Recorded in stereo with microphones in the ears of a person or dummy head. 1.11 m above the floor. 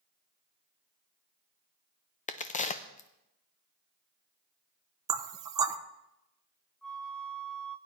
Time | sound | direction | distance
2.3 | a crack | 40° left (ahead or behind) | 0.5 m
5.1 | knocking | 20° right (ahead or behind) | 0.6 m
6.8 | a flute | 5° left (ahead or behind) | 0.5 m